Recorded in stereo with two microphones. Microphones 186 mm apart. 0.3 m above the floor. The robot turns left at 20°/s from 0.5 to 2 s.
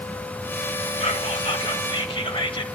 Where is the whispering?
35° left (ahead or behind), 1.2 m; by 2.6 s 30° left (ahead or behind), 1.2 m.